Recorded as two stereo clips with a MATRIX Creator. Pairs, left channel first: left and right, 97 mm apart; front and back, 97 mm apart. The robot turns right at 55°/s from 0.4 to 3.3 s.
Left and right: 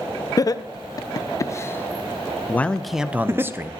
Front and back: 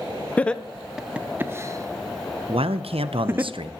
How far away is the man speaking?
About 0.5 m.